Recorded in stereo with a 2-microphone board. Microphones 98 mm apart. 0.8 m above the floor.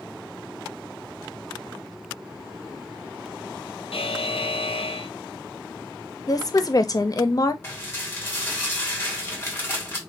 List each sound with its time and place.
3.9 s a buzzer: 80° left, 0.5 m
6.3 s a woman speaking: 40° left (ahead or behind), 0.6 m
7.6 s dishes clattering: 25° left (ahead or behind), 1.9 m